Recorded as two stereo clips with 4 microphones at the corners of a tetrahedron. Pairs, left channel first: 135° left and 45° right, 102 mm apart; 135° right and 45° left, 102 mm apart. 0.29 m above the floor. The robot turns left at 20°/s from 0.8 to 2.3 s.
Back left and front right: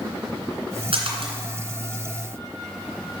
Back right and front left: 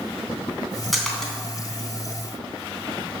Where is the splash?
45° right, 2.5 m; by 1.3 s 55° right, 2.5 m.